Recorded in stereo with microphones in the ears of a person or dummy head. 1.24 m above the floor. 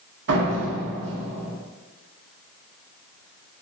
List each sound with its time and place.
0.3 s a door slam: 70° right (ahead or behind), 1.9 m